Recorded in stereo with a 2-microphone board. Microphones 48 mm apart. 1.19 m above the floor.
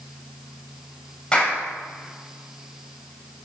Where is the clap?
20° left (ahead or behind), 7 m.